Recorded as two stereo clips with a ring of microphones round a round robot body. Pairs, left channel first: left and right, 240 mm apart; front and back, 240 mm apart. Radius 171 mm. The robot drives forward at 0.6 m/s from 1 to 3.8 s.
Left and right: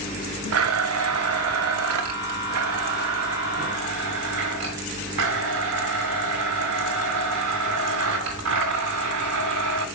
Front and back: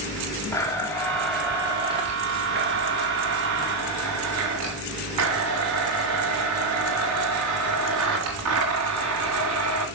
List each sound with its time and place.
0.5 s a blender: 80° right, 1.3 m; by 9.9 s 140° right, 2.0 m